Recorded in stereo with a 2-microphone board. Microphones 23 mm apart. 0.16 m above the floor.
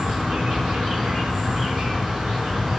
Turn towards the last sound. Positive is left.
turn(degrees=-45)  # may be behind; listen again after turning